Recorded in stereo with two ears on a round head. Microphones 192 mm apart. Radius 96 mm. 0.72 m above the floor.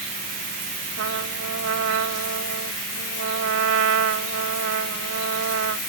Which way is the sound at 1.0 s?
70° right (ahead or behind).